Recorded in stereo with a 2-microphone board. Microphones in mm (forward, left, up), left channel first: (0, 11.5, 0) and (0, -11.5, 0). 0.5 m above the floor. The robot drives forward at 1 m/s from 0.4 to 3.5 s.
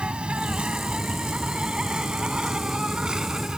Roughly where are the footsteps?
No footsteps in this recording.